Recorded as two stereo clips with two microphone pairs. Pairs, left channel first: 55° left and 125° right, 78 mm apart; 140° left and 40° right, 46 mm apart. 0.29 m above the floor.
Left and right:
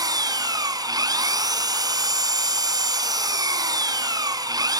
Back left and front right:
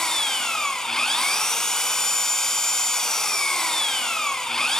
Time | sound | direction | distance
0.0 | an engine running | 145° right | 1.7 m